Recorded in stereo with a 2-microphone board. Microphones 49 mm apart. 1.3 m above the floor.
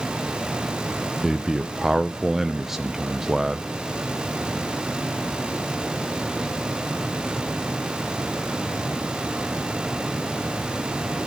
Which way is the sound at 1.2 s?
10° right (ahead or behind).